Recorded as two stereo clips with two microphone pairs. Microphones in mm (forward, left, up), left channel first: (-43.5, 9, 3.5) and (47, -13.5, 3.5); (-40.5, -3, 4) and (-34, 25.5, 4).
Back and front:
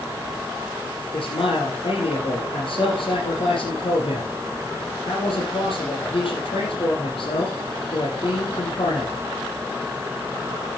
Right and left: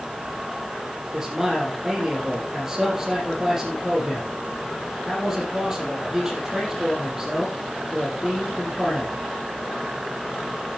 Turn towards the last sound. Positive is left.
turn(degrees=150)